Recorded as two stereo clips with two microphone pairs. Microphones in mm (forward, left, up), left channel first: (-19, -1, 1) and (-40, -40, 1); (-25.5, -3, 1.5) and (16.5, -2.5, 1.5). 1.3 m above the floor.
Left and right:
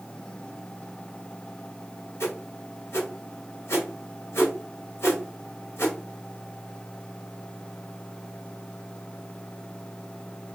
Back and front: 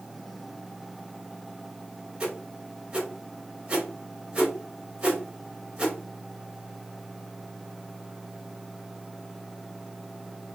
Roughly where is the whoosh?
Left.